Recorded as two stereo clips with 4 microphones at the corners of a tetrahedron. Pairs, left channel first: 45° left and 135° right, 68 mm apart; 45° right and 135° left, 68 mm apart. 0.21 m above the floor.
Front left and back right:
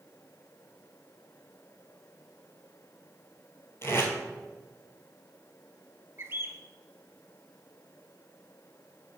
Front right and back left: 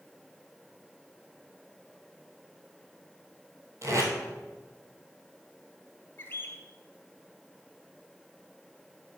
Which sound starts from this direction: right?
A bird, at 6.2 s.